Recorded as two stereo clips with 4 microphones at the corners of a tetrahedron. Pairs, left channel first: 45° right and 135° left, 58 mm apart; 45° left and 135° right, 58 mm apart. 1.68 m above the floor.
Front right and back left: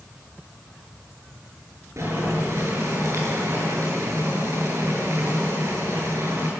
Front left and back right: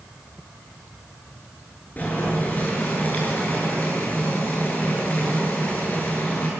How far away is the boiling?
About 8.5 m.